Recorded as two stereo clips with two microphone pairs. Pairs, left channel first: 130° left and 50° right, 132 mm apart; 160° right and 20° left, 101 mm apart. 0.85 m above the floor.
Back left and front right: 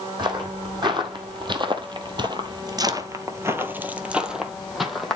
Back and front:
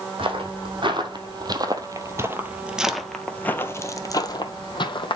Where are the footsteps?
5° left, 1.8 m; by 5.2 s 145° right, 1.5 m.